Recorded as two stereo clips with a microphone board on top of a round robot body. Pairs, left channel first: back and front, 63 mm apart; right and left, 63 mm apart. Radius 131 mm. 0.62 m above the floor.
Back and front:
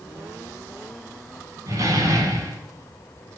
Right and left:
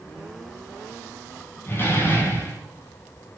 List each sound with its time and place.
1.7 s a door slam: 35° right, 5.5 m